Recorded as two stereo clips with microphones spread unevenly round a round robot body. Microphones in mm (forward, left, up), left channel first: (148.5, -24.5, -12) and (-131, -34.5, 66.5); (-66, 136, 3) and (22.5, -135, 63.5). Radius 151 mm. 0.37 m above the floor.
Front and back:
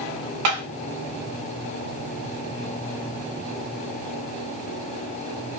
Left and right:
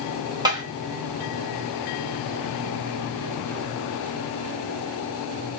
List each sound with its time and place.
0.5 s tapping: 155° right, 0.9 m